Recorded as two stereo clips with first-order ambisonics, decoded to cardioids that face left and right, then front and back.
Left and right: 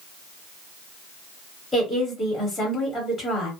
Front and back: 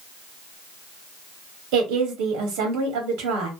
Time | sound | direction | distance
1.7 | a woman speaking | 175° left | 1.1 m